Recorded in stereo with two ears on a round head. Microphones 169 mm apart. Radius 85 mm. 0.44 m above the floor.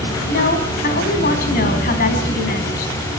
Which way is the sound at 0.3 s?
50° left (ahead or behind).